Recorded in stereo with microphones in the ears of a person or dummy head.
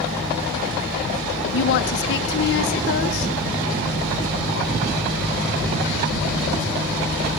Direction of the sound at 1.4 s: 60° left (ahead or behind).